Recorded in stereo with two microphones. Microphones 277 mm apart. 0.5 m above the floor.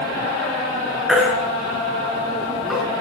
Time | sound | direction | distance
1.1 | a baby crying | centre (ahead or behind) | 3.5 m